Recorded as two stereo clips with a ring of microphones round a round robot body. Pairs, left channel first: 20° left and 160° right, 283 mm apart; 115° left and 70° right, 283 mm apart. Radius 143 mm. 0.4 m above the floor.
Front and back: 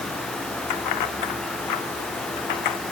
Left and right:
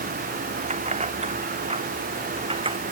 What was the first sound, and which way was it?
Keys jangling, straight ahead.